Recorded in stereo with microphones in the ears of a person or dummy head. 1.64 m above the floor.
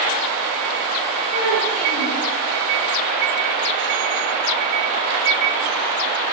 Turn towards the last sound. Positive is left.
turn(degrees=65)  # may be behind; listen again after turning